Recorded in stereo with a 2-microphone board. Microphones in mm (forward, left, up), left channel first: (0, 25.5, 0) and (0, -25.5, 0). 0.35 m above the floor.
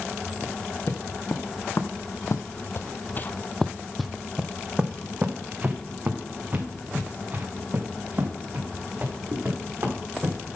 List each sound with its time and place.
0.4 s footsteps: 55° left (ahead or behind), 1.6 m; by 10.4 s 35° right (ahead or behind), 4 m